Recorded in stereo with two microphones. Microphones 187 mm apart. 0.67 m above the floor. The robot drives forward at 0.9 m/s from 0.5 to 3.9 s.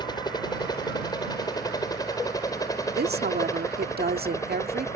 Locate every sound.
0.0 s a helicopter: 20° left (ahead or behind); by 5.0 s 15° left (ahead or behind)
3.0 s a woman speaking: 60° right (ahead or behind); by 4.9 s 55° right (ahead or behind)